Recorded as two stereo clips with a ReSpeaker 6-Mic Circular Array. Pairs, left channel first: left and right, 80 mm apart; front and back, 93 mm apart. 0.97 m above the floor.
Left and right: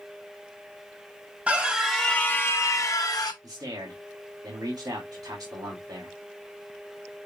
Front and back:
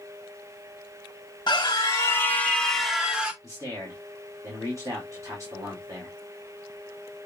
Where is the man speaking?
125° right, 2.5 m.